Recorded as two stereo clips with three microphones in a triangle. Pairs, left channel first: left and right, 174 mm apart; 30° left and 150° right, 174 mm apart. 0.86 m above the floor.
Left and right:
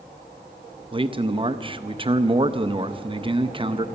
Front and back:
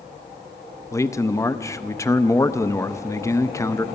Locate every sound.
0.9 s a man speaking: 40° right, 0.5 m